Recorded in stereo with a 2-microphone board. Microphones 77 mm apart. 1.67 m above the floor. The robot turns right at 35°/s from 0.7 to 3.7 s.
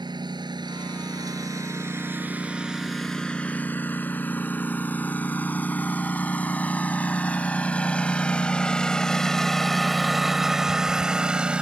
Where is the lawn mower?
70° right (ahead or behind); by 11.6 s 15° right (ahead or behind).